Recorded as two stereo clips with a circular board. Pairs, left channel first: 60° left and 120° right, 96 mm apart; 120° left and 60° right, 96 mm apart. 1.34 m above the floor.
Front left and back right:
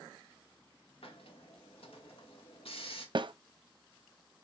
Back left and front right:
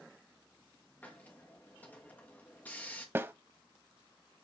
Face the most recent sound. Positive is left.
turn(degrees=-120)